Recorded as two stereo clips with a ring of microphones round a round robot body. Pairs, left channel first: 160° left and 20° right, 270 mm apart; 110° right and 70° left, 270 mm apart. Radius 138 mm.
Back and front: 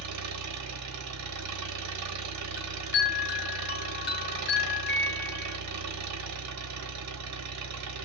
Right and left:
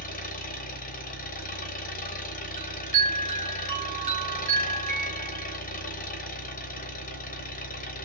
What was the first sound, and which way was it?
An engine running, 50° right.